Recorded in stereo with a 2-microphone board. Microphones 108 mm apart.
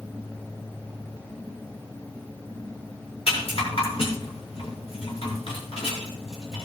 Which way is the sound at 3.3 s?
65° left (ahead or behind).